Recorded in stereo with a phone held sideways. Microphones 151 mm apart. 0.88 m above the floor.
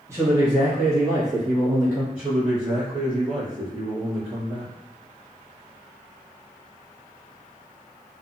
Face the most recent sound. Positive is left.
turn(degrees=-10)  # may be behind; listen again after turning